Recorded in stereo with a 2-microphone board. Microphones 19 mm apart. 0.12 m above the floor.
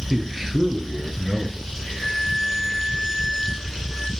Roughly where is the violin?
Right.